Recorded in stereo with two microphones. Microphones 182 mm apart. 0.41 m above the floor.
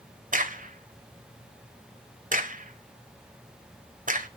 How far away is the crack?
About 1.7 m.